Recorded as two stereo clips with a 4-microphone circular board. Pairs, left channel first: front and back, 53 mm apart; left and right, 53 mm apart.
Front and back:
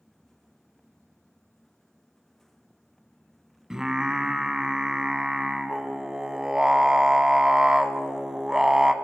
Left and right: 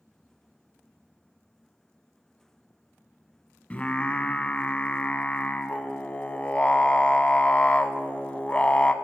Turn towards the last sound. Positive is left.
turn(degrees=115)